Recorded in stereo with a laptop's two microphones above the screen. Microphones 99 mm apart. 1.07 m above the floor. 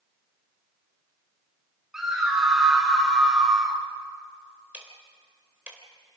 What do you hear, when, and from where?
1.9 s a scream: 5° right (ahead or behind), 5 m
4.7 s ticking: 15° right (ahead or behind), 3.5 m